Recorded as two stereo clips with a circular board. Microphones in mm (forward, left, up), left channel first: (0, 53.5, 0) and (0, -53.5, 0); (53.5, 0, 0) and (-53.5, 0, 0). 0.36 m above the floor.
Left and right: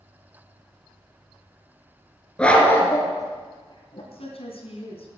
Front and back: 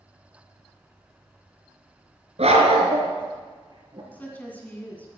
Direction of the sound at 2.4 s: 170° left.